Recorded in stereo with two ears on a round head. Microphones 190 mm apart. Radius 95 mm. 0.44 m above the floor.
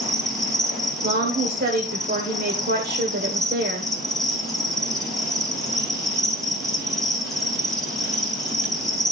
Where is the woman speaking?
45° right (ahead or behind), 1.3 m.